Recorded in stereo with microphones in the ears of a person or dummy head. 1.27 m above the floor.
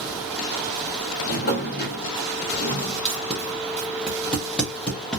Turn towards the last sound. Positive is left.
turn(degrees=5)  # may be behind; listen again after turning